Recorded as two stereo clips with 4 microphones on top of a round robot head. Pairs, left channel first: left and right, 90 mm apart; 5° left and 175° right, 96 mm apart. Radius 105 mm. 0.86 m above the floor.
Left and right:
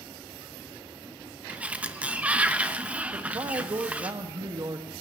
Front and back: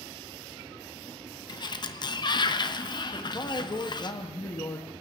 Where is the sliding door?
15° right, 1.1 m.